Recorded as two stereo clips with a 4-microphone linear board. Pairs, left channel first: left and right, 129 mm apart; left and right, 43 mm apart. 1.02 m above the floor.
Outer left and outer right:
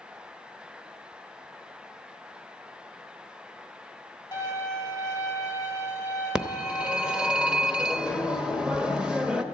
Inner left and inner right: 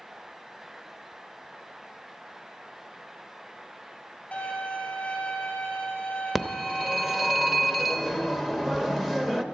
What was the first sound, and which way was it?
A violin, 30° left (ahead or behind).